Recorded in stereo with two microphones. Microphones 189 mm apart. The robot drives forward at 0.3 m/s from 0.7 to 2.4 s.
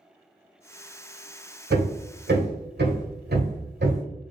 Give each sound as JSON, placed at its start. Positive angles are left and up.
{"t": 1.7, "sound": "hammering", "side_deg": -65, "distance_m": 1.1}